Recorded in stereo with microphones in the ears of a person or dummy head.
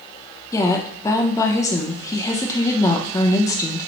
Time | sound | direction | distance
0.5 | a woman speaking | 20° left (ahead or behind) | 0.6 m